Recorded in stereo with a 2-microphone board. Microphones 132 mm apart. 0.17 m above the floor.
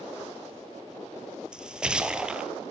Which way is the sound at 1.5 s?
5° right (ahead or behind).